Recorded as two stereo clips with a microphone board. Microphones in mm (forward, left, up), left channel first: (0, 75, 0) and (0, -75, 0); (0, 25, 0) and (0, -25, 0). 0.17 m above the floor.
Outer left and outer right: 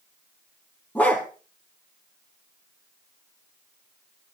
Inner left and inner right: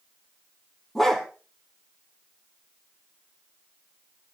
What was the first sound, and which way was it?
A dog barking, 10° left (ahead or behind).